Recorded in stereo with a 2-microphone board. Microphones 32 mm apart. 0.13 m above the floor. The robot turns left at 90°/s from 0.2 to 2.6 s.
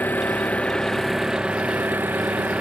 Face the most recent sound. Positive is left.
turn(degrees=-135)